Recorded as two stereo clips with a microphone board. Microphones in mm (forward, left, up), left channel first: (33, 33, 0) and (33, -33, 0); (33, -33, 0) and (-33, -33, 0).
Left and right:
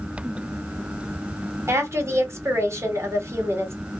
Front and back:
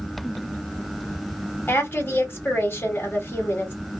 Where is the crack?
I don't hear a crack.